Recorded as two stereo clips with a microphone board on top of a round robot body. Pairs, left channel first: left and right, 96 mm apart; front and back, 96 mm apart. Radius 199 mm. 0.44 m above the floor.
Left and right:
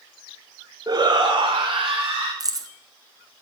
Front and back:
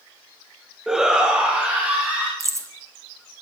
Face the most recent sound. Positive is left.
turn(degrees=-130)